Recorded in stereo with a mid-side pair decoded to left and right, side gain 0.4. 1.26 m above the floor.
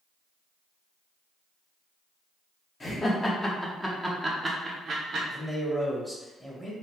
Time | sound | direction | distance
2.8 | laughter | 35° left | 1.1 m
5.3 | a man speaking | 5° left | 1.1 m